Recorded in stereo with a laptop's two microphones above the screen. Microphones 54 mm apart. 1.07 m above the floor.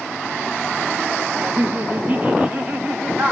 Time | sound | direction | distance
1.4 | laughter | 35° right (ahead or behind) | 0.7 m